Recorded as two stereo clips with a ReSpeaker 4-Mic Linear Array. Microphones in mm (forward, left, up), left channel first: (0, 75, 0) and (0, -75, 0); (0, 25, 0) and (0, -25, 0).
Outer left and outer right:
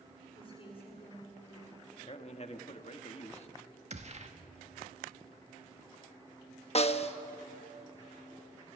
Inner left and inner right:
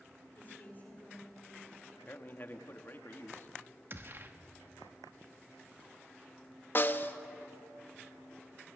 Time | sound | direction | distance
0.3 | a woman speaking | 35° left (ahead or behind) | 9 m
2.1 | a man speaking | 45° left (ahead or behind) | 1.3 m
3.9 | a gunshot | 50° right (ahead or behind) | 1.4 m
6.8 | a snare drum | 45° left (ahead or behind) | 0.9 m